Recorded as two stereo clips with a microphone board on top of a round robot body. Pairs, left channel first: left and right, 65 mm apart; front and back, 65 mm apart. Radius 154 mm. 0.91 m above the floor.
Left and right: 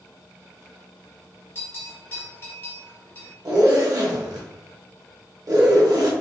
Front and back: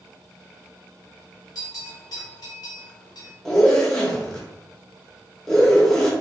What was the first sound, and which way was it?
A bell, 40° left.